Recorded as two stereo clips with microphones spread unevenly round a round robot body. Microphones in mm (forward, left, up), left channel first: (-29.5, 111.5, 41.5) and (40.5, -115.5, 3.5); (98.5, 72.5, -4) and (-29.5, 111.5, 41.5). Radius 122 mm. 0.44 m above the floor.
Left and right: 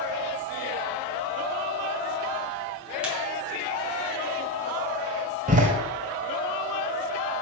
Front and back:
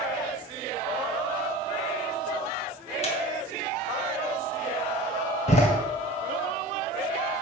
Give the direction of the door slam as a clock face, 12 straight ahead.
1 o'clock.